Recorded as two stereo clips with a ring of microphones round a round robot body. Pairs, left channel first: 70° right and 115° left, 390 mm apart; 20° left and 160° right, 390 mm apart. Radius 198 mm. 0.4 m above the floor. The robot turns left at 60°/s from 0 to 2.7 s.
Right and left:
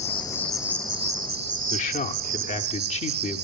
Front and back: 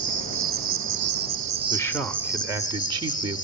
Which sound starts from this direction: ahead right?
A man speaking, at 1.7 s.